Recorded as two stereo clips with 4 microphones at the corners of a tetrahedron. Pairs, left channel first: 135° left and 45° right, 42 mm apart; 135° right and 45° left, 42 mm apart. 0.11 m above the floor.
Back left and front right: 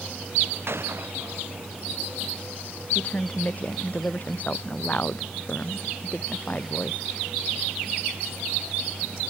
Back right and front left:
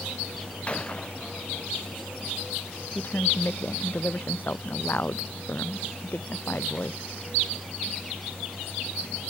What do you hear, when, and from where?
0.7 s a gunshot: 70° right
3.0 s a woman speaking: 175° right